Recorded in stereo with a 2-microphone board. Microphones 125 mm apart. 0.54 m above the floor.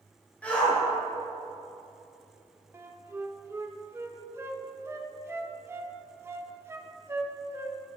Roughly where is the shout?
Centre.